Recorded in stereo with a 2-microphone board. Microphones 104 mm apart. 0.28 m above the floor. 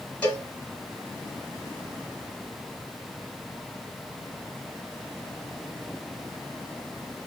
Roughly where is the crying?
No crying in this recording.